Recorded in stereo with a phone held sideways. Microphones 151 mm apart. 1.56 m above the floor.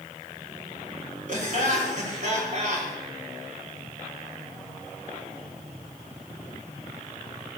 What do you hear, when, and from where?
1.3 s laughter: 60° right (ahead or behind), 5.5 m